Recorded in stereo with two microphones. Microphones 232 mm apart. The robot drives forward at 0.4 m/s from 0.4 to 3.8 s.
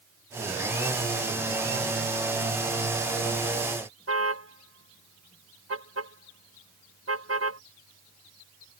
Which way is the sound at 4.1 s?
80° right.